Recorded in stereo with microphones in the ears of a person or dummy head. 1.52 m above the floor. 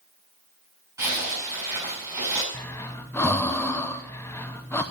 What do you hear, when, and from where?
1.0 s a zipper: 20° right (ahead or behind), 5.5 m
2.5 s breathing: 10° left (ahead or behind), 0.8 m